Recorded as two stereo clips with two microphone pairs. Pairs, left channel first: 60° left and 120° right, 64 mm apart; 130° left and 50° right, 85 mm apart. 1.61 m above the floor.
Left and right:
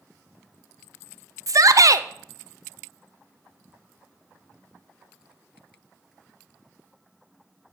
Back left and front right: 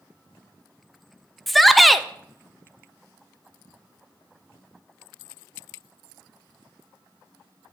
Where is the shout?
140° right, 0.5 m.